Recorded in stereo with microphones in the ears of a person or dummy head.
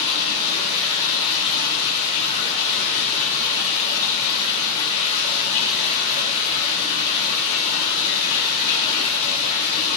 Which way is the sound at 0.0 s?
35° left (ahead or behind).